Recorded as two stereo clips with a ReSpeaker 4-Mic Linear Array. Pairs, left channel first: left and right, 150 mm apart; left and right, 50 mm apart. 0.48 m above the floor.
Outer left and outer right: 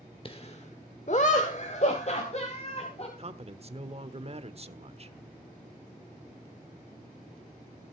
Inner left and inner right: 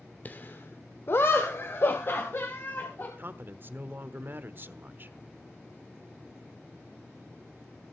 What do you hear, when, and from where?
0.2 s laughter: 35° left (ahead or behind), 1.1 m; by 3.1 s 45° left (ahead or behind), 3 m
3.2 s a man speaking: 45° right (ahead or behind), 1.1 m